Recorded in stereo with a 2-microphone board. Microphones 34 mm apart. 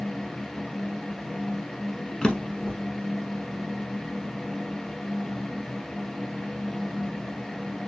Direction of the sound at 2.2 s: 20° left (ahead or behind).